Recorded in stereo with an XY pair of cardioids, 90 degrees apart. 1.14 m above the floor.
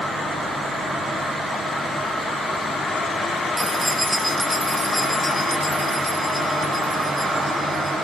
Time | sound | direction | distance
3.6 | keys jangling | 20° right | 1.0 m